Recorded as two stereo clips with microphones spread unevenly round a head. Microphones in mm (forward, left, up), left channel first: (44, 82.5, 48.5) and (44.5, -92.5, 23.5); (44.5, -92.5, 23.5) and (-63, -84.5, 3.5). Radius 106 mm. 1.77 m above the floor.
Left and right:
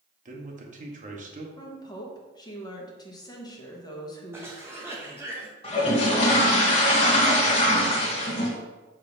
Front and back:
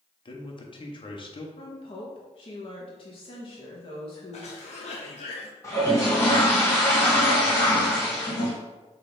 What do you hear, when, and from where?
0.2 s a man speaking: 40° right, 1.4 m
1.6 s a woman speaking: 30° left, 1.3 m
4.3 s a cough: 10° right, 0.8 m
5.6 s a toilet flushing: 50° left, 1.4 m